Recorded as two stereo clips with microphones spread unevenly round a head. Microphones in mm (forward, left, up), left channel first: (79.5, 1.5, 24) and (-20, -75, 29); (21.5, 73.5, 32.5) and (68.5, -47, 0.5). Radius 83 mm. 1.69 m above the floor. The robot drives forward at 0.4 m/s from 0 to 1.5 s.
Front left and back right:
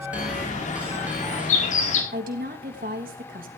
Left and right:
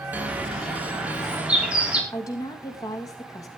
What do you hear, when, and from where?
0.1 s a bird: 10° left, 5.5 m; by 2.0 s 15° left, 5 m
2.1 s a woman speaking: straight behind, 2.5 m